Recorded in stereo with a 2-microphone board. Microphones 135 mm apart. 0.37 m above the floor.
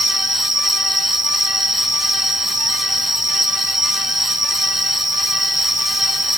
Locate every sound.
0.0 s an insect: 75° right (ahead or behind)